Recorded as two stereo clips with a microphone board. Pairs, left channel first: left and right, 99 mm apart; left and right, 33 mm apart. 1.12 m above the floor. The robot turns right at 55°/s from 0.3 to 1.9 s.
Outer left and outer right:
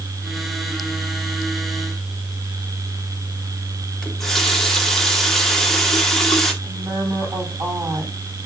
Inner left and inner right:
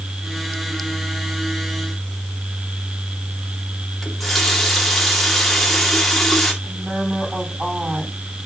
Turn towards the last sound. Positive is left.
turn(degrees=-45)  # may be behind; listen again after turning